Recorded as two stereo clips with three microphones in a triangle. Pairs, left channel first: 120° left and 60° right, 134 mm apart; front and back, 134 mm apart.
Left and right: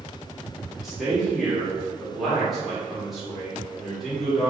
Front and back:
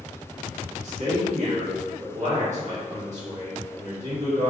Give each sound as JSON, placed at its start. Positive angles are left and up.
{"t": 0.7, "sound": "a man speaking", "azimuth_deg": -150, "distance_m": 1.5}